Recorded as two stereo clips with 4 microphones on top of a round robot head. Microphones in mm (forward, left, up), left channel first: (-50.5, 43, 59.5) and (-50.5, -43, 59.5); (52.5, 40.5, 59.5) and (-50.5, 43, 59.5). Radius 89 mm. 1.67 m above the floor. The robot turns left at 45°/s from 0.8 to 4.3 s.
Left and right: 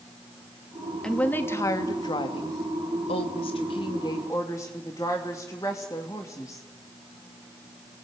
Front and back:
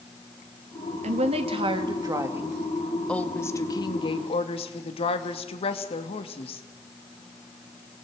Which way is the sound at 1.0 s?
170° left.